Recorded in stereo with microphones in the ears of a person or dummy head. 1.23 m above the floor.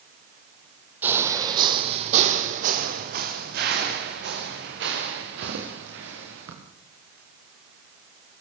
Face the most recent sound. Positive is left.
turn(degrees=-75)  # may be behind; listen again after turning